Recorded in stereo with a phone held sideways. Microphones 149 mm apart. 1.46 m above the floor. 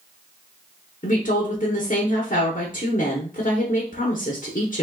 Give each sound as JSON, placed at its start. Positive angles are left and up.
{"t": 1.0, "sound": "a woman speaking", "side_deg": 65, "distance_m": 0.9}